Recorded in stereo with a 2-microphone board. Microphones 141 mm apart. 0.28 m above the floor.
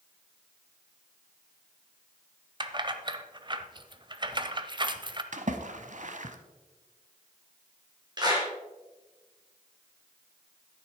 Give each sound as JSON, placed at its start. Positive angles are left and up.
{"t": 2.6, "sound": "keys jangling", "side_deg": -35, "distance_m": 0.7}
{"t": 5.3, "sound": "a splash", "side_deg": -60, "distance_m": 0.9}
{"t": 8.2, "sound": "a clap", "side_deg": -30, "distance_m": 3.5}